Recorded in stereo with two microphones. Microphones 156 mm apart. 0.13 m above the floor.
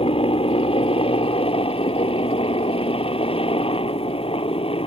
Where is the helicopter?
35° left (ahead or behind).